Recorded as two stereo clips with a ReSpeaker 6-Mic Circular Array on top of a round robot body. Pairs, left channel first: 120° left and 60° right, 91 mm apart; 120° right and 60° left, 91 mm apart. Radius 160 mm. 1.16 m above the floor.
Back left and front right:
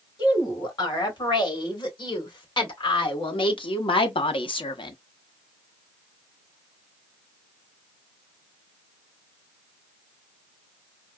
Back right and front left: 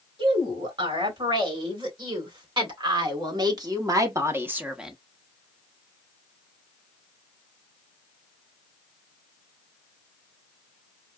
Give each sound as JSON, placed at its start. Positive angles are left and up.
{"t": 0.2, "sound": "a woman speaking", "azimuth_deg": 80, "distance_m": 3.0}